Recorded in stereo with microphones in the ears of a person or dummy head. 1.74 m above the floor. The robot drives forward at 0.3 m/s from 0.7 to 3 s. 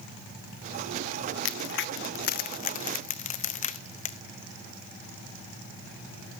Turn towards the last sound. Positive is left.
turn(degrees=40)  # may be behind; listen again after turning